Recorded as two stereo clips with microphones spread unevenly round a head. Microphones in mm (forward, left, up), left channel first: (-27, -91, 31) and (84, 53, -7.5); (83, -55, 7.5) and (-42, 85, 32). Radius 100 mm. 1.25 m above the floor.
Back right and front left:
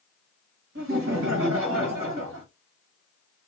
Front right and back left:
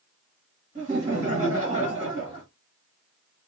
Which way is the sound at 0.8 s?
80° left.